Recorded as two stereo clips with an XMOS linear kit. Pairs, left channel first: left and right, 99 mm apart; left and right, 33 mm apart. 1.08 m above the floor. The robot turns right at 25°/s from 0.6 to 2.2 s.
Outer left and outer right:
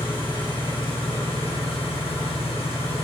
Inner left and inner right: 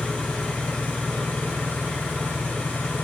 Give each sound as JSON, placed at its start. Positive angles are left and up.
{"t": 0.0, "sound": "an engine running", "azimuth_deg": 55, "distance_m": 1.1}